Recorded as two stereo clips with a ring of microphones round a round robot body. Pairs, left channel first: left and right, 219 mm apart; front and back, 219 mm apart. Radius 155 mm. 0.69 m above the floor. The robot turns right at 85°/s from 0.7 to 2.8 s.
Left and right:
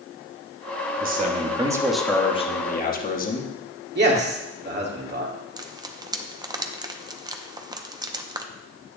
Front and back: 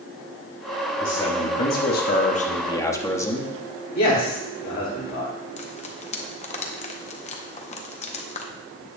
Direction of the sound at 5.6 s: 35° right.